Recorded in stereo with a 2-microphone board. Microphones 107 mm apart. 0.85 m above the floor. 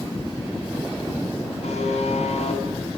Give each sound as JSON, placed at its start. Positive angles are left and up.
{"t": 1.6, "sound": "a buzzer", "side_deg": 85, "distance_m": 8.5}